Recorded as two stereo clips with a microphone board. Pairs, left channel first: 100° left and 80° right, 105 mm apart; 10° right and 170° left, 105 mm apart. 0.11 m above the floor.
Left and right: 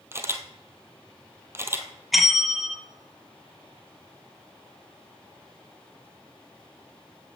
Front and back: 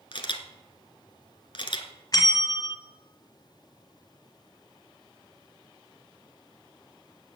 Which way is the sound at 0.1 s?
20° right.